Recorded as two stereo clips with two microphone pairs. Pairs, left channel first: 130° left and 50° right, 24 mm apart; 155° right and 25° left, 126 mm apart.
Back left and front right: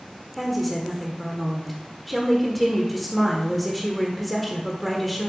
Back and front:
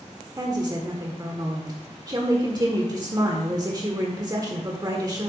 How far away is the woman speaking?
About 1.3 m.